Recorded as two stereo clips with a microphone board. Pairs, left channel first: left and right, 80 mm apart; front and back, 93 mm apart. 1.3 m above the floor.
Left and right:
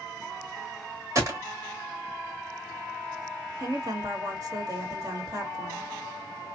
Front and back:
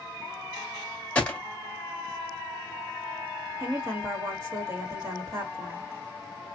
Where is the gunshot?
70° right, 1.3 m.